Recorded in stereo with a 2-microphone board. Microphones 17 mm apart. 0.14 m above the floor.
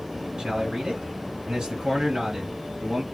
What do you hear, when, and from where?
0.4 s a man speaking: 40° right (ahead or behind), 2.5 m